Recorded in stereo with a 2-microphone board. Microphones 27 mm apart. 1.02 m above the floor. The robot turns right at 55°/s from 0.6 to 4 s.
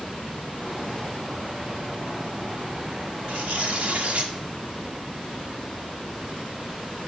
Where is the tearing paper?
105° right, 1.7 m; by 4.3 s 65° right, 1.7 m.